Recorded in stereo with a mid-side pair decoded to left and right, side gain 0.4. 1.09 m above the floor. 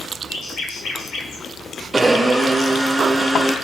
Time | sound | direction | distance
0.3 | a bird | 70° left | 4.5 m
1.9 | a blender | 25° right | 5 m